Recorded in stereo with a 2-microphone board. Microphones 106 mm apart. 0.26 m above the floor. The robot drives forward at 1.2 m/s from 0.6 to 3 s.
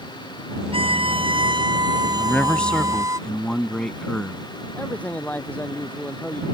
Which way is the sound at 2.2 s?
10° left (ahead or behind).